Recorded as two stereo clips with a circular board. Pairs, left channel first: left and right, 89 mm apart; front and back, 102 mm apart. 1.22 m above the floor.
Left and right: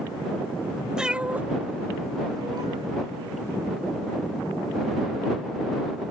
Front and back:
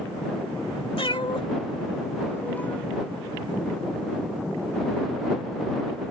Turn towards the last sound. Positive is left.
turn(degrees=-75)